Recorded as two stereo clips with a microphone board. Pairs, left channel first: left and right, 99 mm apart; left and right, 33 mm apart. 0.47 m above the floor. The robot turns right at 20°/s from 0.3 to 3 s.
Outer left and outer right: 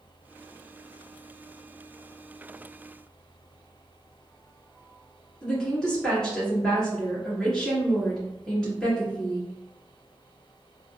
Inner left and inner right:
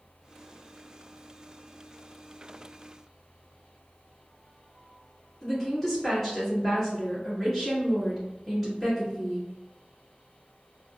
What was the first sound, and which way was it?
A woman speaking, 10° left (ahead or behind).